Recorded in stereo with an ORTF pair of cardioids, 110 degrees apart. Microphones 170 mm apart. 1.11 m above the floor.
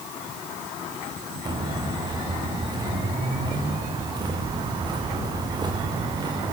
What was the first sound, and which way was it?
Footsteps, 25° right.